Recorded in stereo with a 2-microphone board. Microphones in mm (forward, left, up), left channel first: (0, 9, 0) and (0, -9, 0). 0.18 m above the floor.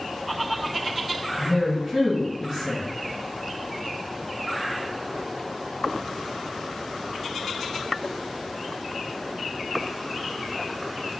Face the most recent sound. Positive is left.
turn(degrees=-35)  # may be behind; listen again after turning